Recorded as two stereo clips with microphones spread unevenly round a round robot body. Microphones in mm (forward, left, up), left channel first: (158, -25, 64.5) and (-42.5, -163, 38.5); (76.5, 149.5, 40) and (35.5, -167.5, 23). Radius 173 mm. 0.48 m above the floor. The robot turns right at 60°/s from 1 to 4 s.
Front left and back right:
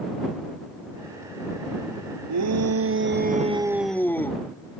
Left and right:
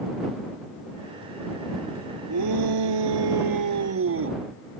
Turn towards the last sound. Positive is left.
turn(degrees=-50)